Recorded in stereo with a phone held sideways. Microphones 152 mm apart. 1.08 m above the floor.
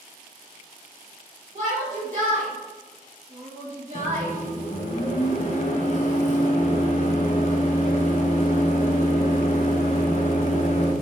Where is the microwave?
55° left (ahead or behind), 0.7 m.